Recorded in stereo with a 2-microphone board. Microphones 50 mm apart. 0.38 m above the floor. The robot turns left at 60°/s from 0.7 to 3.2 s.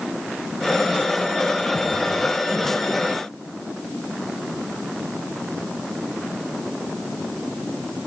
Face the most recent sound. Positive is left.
No sound to turn to.